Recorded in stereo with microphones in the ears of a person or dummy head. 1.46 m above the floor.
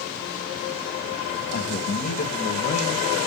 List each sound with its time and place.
1.5 s a man speaking: 45° left (ahead or behind), 1.9 m; by 3.1 s 35° left (ahead or behind), 1.1 m